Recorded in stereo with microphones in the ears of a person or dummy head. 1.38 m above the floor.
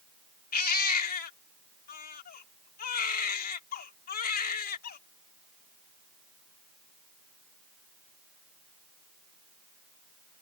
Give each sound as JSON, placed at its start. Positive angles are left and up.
{"t": 0.5, "sound": "a baby crying", "side_deg": 45}